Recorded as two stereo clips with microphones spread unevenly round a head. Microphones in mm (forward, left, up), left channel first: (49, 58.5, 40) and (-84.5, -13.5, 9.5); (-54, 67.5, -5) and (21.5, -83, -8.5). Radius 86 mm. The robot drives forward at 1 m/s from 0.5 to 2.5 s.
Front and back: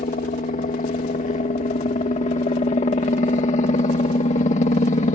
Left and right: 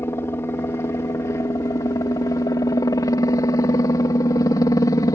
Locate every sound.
0.0 s a helicopter: 45° left; by 5.2 s 55° left